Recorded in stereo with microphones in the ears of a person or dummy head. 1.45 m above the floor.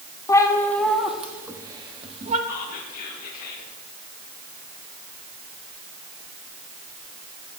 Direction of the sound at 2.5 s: 45° left (ahead or behind).